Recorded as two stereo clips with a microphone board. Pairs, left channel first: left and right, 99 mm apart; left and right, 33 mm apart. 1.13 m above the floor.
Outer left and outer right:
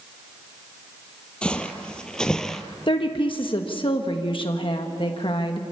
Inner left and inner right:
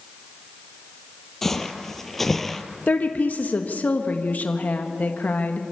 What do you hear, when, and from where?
1.4 s footsteps: 10° left (ahead or behind), 1.3 m; by 2.6 s 5° left (ahead or behind), 1.2 m
2.9 s a woman speaking: 60° left (ahead or behind), 1.2 m